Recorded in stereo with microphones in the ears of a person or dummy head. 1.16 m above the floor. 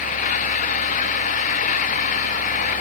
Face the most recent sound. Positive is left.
turn(degrees=45)  # may be behind; listen again after turning